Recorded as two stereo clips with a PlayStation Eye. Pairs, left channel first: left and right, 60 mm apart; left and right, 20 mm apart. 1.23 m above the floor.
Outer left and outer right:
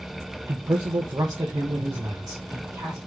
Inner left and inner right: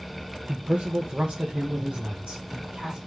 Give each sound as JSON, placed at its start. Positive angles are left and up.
{"t": 0.5, "sound": "a man speaking", "side_deg": -55, "distance_m": 0.6}